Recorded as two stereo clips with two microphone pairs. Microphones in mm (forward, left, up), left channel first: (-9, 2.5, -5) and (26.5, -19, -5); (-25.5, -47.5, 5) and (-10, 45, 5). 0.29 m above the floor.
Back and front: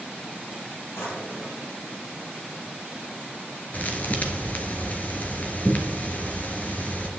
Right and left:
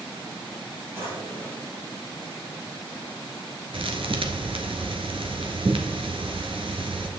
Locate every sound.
0.9 s a drawer: 145° left, 5 m
3.7 s a thud: 100° left, 1.4 m